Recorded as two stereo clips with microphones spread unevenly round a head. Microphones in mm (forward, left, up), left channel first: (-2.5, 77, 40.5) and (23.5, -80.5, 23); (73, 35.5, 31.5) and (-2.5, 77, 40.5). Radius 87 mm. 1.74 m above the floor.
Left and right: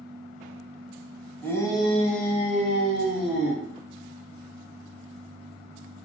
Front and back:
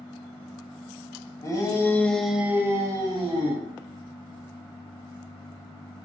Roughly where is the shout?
Ahead.